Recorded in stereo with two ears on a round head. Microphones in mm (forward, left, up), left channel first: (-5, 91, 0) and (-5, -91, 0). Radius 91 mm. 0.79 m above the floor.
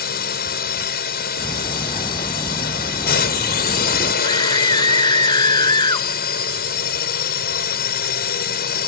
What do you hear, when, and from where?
0.0 s a drone: 50° left (ahead or behind)
1.4 s ticking: 25° left (ahead or behind)
4.2 s a scream: 20° left (ahead or behind)